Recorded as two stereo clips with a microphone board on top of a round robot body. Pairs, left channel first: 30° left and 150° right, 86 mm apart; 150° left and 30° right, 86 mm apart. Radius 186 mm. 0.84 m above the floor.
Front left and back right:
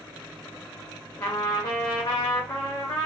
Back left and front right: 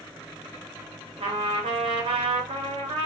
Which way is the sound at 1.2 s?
20° right.